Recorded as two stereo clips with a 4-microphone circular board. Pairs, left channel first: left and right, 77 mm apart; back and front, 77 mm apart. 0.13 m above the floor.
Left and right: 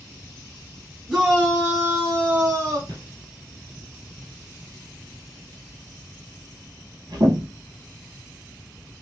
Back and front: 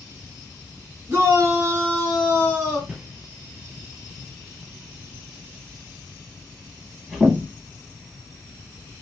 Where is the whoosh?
75° right, 1.4 m.